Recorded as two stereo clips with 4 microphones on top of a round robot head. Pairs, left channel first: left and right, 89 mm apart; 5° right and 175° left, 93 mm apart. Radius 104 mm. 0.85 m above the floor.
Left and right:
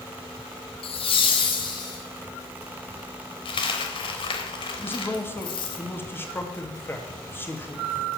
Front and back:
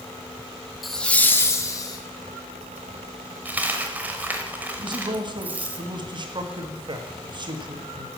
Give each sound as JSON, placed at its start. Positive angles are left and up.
{"t": 0.8, "sound": "laughter", "azimuth_deg": 85, "distance_m": 1.3}
{"t": 3.5, "sound": "a dropped coin", "azimuth_deg": 105, "distance_m": 0.8}
{"t": 4.8, "sound": "a man speaking", "azimuth_deg": 155, "distance_m": 1.8}